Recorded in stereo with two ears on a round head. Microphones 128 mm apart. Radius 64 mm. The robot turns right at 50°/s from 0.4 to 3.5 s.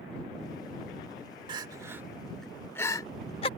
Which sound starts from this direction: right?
Crying, at 1.5 s.